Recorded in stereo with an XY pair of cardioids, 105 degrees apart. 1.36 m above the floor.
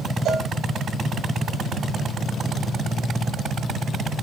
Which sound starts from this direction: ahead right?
A cowbell, at 0.2 s.